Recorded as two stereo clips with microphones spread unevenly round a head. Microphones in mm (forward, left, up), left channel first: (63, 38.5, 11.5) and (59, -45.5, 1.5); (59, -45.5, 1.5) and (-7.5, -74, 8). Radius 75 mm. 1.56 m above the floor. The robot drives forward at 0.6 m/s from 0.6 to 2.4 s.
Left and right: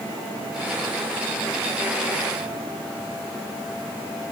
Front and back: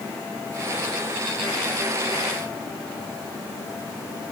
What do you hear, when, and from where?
Only background noise.